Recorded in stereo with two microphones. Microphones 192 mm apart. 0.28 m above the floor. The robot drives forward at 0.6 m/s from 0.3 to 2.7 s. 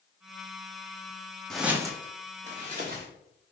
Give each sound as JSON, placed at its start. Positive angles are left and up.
{"t": 1.5, "sound": "footsteps", "side_deg": 5, "distance_m": 0.5}